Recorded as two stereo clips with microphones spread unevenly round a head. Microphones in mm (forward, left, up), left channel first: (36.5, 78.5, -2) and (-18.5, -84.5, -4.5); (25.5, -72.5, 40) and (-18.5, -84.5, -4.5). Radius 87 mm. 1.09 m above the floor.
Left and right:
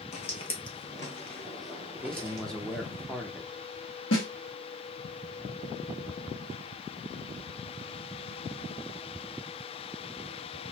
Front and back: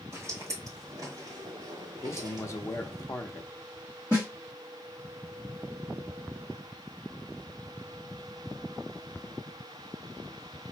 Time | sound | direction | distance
0.1 | footsteps | 90° left | 1.3 m
2.0 | a man speaking | 15° right | 0.7 m
4.1 | a snare drum | 90° left | 1.5 m